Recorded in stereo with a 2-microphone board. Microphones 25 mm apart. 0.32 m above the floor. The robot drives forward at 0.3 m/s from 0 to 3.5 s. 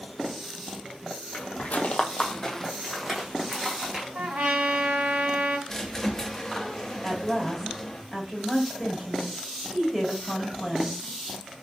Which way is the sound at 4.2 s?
55° right (ahead or behind).